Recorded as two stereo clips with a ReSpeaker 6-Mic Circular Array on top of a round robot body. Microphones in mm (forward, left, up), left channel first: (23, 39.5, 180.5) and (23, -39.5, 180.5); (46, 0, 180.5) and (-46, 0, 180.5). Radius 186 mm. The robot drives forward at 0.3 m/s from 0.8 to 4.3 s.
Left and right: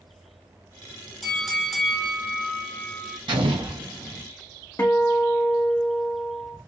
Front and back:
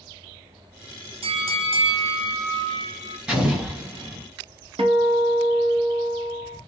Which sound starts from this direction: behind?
A bell, at 1.2 s.